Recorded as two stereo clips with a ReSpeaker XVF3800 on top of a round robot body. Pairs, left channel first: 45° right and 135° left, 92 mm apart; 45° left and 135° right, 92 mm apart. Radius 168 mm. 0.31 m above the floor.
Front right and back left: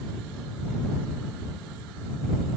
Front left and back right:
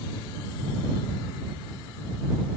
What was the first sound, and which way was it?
Only background noise.